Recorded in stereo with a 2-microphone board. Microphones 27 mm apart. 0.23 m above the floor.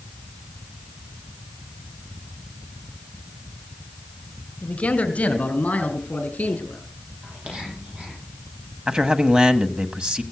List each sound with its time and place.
4.6 s a man speaking: 45° left (ahead or behind), 1.9 m; by 6.8 s 55° left (ahead or behind), 4.5 m
7.2 s whispering: 50° right (ahead or behind), 10 m
8.9 s a man speaking: 35° right (ahead or behind), 1.3 m